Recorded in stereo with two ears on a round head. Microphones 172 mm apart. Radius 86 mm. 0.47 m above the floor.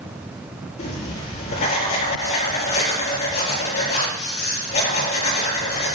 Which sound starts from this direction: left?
Writing, at 0.8 s.